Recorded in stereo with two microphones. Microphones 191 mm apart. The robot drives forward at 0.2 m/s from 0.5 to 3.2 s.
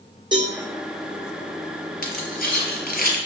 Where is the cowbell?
25° right (ahead or behind), 1.3 m.